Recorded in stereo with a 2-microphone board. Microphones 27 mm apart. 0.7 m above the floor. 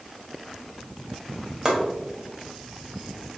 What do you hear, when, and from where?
1.6 s chopping: 20° right (ahead or behind), 2 m